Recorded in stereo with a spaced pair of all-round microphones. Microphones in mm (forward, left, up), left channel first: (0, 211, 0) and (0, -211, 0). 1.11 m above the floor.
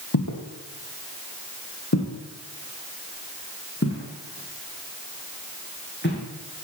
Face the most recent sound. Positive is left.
turn(degrees=25)  # may be behind; listen again after turning